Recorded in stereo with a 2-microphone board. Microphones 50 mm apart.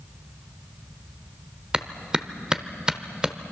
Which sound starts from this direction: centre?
A clap, at 1.7 s.